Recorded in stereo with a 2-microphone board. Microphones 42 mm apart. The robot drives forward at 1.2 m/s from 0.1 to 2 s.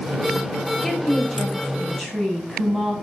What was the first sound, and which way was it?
A woman speaking, 5° left (ahead or behind).